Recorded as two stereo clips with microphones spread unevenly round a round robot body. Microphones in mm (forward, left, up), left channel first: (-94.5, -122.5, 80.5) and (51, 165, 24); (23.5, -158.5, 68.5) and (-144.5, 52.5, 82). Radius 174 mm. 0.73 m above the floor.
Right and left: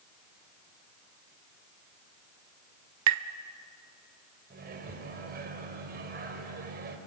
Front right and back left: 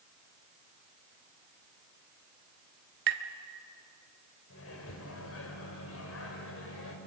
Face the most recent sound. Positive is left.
turn(degrees=0)